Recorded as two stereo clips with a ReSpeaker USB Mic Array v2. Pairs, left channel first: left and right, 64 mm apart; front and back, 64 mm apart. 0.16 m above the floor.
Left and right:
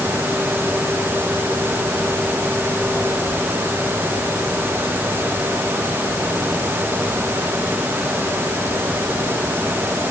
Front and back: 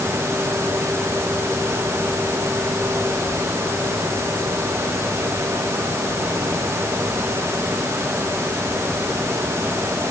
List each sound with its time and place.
Only background noise.